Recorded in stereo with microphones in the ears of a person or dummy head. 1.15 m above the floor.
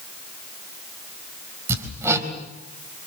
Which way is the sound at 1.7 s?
10° right (ahead or behind).